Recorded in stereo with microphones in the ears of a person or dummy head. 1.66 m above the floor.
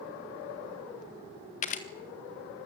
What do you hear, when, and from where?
1.6 s a camera shutter: 45° left (ahead or behind), 1.7 m